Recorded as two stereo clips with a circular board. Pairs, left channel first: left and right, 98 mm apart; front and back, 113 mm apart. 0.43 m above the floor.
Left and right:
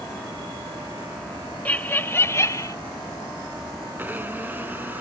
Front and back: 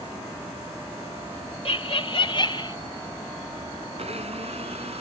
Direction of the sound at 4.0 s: 160° right.